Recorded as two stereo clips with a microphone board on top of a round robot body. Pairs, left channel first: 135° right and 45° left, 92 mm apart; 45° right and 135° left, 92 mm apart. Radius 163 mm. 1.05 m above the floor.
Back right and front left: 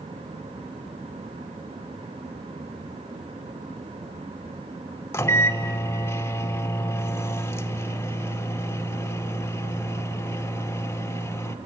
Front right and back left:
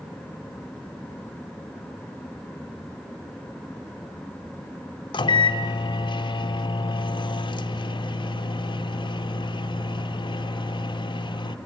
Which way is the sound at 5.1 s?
70° right.